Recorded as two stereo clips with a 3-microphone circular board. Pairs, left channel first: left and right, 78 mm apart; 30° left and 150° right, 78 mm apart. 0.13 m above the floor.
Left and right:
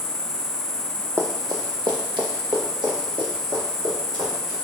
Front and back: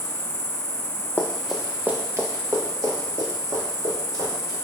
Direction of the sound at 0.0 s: 120° right.